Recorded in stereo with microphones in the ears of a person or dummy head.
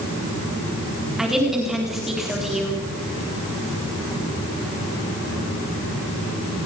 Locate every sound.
1.2 s a woman speaking: 5° right (ahead or behind), 4 m